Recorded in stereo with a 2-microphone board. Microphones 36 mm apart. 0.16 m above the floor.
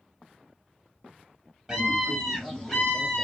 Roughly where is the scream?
Centre.